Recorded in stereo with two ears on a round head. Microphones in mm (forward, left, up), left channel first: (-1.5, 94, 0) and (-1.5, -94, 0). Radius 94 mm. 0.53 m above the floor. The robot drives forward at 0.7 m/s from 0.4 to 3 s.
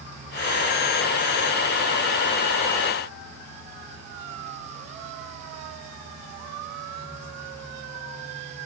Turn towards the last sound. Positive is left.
No sound to turn to.